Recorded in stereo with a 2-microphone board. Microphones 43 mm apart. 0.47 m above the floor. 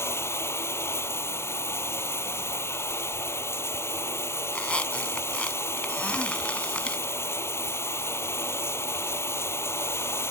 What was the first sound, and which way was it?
Running water, 90° left.